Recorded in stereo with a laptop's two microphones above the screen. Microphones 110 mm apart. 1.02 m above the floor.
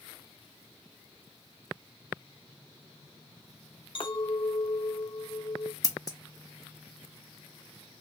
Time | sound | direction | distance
4.0 | a clink | 50° left (ahead or behind) | 0.6 m
5.8 | scissors | 35° left (ahead or behind) | 0.6 m